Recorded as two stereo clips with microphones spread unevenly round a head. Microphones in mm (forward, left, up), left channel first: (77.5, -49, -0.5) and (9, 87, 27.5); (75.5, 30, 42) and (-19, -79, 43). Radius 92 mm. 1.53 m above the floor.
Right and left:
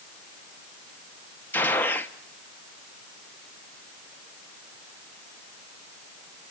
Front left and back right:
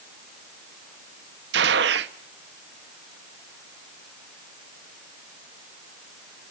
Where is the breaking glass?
No breaking glass in this recording.